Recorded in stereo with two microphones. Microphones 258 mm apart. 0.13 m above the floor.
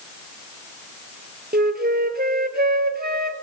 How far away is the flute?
About 0.6 m.